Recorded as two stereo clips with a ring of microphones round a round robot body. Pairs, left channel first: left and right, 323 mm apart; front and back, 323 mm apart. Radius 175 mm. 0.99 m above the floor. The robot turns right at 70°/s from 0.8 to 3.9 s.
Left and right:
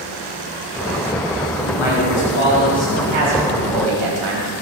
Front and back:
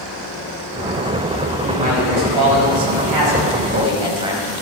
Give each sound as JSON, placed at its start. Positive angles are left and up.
{"t": 1.7, "sound": "a man speaking", "azimuth_deg": 100, "distance_m": 6.0}